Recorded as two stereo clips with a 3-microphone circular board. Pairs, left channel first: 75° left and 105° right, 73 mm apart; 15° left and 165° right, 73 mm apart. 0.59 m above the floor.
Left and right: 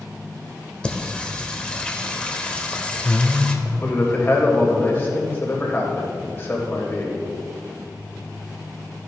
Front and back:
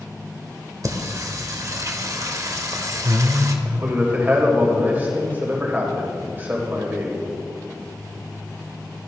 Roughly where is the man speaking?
Behind left.